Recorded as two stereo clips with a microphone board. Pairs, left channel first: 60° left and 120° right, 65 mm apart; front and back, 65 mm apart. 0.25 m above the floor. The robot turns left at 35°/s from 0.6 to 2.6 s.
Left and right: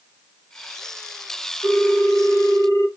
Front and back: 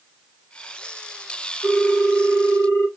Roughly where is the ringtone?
Left.